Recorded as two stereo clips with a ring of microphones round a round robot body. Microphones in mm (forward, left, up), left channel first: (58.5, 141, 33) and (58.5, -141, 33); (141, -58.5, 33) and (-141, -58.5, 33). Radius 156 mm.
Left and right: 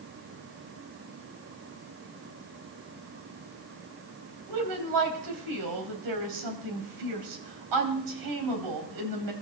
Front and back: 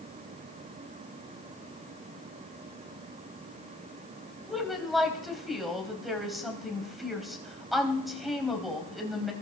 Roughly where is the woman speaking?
Right.